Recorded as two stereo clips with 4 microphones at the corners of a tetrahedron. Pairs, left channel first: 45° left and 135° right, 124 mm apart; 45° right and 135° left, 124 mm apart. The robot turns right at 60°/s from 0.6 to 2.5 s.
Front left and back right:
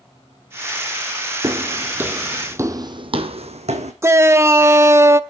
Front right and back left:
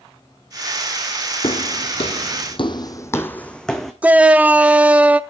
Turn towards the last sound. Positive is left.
turn(degrees=-165)